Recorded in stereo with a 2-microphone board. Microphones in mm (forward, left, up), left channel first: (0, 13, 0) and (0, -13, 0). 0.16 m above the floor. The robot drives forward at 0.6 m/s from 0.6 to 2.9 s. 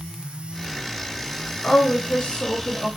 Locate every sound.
1.6 s a woman speaking: 40° left (ahead or behind), 1.9 m; by 2.9 s 35° left (ahead or behind), 2 m